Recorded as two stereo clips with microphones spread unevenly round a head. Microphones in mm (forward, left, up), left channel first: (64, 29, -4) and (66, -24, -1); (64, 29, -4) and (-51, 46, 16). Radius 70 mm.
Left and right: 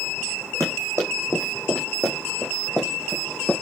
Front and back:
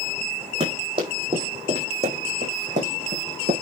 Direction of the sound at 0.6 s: 135° right.